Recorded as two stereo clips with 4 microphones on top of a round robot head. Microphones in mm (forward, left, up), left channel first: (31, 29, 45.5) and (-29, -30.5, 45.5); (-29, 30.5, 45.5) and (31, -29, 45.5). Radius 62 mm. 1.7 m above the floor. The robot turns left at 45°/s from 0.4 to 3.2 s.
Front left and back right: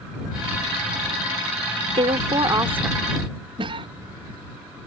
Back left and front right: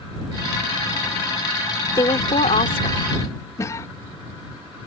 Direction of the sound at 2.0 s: 170° right.